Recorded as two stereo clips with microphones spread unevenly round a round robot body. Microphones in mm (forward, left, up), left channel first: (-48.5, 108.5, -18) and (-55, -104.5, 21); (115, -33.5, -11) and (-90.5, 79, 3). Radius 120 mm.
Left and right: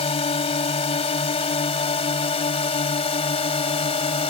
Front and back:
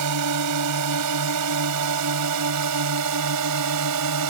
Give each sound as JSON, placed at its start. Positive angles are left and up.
{"t": 0.0, "sound": "a drone", "azimuth_deg": 150}